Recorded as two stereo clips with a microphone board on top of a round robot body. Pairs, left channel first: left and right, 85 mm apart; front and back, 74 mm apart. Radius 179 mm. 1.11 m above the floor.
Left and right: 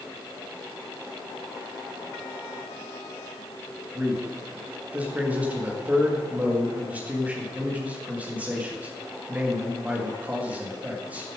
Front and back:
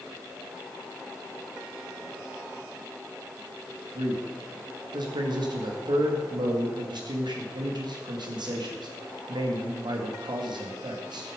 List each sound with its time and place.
4.0 s a man speaking: 165° right, 2.5 m